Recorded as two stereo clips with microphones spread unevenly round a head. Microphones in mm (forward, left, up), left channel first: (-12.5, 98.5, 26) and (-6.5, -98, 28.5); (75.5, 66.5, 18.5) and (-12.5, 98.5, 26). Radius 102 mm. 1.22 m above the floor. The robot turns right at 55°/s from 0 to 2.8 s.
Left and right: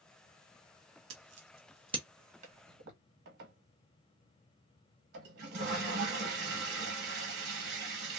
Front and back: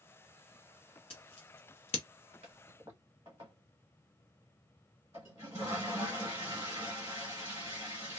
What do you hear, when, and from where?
1.1 s scissors: 65° right, 0.7 m; by 2.0 s 15° right, 0.7 m
2.4 s a toilet flushing: 145° right, 1.0 m; by 8.2 s 125° right, 1.0 m